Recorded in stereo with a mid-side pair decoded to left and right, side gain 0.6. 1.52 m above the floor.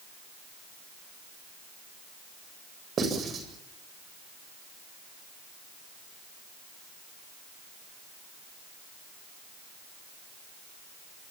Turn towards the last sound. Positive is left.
turn(degrees=-40)